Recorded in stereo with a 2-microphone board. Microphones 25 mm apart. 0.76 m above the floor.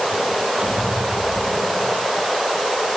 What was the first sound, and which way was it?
A squeak, 40° right (ahead or behind).